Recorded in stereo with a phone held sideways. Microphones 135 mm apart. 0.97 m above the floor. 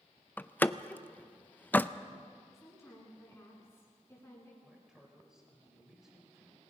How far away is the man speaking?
About 5.5 m.